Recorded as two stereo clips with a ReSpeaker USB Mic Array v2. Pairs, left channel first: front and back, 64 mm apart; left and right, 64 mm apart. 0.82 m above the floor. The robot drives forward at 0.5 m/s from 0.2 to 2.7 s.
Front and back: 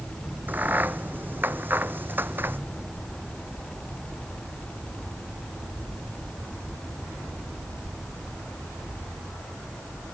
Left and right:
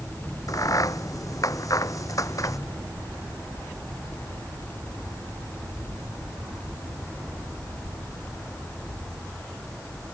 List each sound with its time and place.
0.5 s a crack: 120° left; by 2.6 s 125° left